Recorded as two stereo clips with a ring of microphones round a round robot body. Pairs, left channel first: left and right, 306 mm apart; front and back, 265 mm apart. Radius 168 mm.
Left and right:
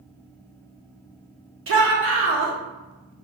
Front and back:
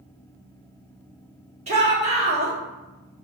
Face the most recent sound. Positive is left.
turn(degrees=-120)